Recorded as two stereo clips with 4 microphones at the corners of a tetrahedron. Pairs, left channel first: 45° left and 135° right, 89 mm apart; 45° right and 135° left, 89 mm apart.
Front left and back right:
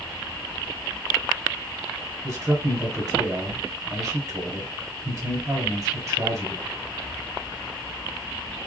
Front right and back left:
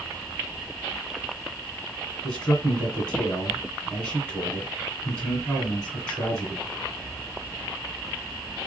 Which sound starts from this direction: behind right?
A man speaking, at 2.2 s.